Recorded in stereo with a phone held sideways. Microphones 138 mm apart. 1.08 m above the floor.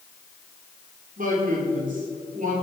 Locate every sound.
1.2 s a man speaking: 80° right, 3.5 m; by 2.5 s 75° right (ahead or behind), 4 m